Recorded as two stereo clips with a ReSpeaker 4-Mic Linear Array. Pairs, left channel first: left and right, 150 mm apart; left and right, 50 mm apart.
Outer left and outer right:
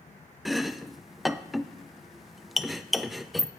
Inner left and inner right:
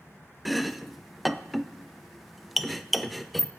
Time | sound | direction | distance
0.5 | chopping | centre (ahead or behind) | 0.7 m